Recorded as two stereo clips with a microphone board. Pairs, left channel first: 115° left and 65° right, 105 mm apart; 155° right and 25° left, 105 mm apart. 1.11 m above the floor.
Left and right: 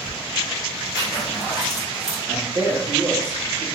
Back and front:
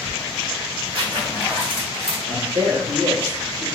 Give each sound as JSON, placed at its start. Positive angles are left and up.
{"t": 0.9, "sound": "a zipper", "azimuth_deg": 60, "distance_m": 1.3}
{"t": 2.3, "sound": "a man speaking", "azimuth_deg": -5, "distance_m": 1.3}